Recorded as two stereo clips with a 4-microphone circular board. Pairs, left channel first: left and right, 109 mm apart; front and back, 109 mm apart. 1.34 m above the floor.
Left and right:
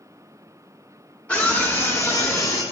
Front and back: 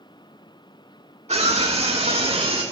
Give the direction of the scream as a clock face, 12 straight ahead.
6 o'clock.